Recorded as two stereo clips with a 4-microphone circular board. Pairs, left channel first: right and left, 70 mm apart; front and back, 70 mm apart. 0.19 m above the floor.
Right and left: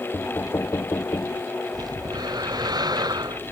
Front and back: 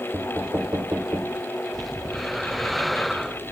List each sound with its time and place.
0.1 s knocking: 125° right
1.7 s breathing: 90° left